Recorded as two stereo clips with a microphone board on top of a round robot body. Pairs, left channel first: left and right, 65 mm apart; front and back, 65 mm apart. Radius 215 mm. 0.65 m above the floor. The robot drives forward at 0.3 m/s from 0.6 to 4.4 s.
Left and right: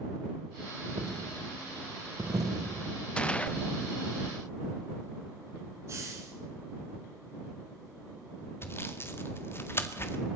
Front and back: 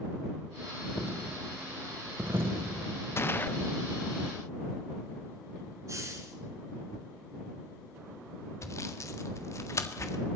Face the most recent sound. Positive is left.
turn(degrees=40)